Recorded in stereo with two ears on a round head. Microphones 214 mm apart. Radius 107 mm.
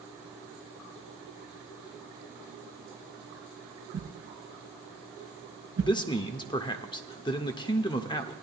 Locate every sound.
3.9 s a whoosh: 75° right (ahead or behind), 2 m
5.8 s a man speaking: 20° left (ahead or behind), 0.7 m